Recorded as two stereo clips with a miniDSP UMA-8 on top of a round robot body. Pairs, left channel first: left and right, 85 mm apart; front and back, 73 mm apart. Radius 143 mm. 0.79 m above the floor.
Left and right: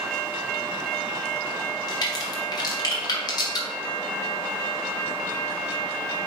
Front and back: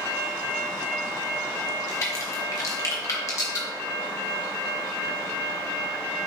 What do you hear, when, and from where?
1.9 s a crack: 50° left, 1.5 m